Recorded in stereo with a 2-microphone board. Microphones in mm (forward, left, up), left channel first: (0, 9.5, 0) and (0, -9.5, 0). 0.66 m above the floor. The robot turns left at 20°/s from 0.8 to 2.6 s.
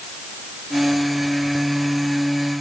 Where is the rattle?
I don't hear a rattle.